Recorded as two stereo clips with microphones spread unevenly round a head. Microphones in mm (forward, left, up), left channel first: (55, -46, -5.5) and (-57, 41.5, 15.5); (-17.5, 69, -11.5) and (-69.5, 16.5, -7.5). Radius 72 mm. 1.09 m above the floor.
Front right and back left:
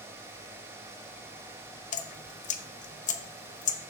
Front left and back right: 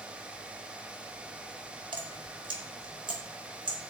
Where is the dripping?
75° right, 0.8 m.